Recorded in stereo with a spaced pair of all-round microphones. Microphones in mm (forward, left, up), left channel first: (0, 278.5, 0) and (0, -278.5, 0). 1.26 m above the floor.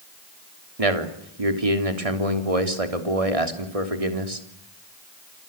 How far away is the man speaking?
About 3.5 m.